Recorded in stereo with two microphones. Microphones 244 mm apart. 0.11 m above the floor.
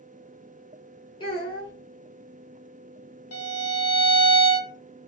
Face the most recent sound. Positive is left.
turn(degrees=80)